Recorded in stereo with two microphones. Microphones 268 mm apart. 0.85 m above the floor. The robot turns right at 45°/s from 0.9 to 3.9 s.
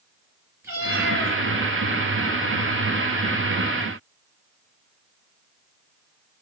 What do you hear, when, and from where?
0.6 s a cat meowing: 10° right (ahead or behind), 3 m; by 1.4 s 10° left (ahead or behind), 3 m